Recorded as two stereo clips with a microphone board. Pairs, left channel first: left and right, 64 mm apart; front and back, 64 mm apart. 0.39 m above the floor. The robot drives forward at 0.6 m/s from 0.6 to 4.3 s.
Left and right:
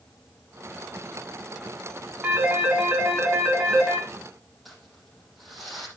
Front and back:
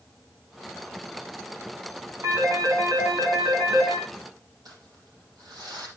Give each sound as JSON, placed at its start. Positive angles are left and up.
{"t": 2.2, "sound": "a phone ringing", "azimuth_deg": -155, "distance_m": 2.5}
{"t": 4.7, "sound": "crumpling", "azimuth_deg": 180, "distance_m": 7.5}